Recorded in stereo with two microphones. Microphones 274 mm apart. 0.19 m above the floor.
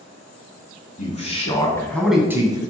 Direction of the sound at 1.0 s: 30° left (ahead or behind).